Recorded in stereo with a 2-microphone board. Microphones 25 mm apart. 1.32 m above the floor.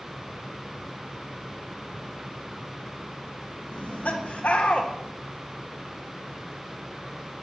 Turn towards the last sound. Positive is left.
turn(degrees=70)  # may be behind; listen again after turning